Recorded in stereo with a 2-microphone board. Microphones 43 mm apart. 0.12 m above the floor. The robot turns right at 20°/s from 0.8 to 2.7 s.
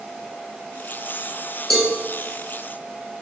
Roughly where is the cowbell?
Centre.